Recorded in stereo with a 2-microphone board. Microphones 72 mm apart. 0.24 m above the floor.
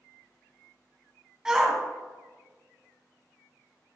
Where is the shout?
10° right (ahead or behind), 1.7 m.